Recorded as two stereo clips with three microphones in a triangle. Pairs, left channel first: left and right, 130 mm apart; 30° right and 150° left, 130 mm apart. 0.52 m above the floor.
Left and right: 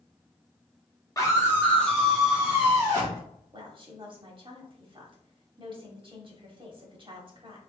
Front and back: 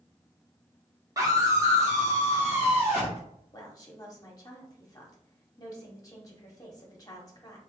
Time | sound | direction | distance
1.2 | a scream | 120° left | 1.4 m
3.5 | a woman speaking | 75° right | 1.2 m